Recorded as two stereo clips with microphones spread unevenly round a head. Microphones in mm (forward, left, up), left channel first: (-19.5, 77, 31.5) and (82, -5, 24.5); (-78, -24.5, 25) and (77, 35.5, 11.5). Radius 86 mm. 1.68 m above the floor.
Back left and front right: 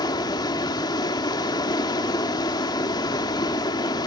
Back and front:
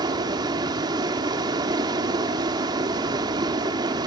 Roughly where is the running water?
Left.